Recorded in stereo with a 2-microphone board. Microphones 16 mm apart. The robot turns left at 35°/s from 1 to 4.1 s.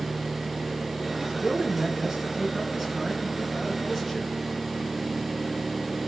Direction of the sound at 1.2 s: 70° right.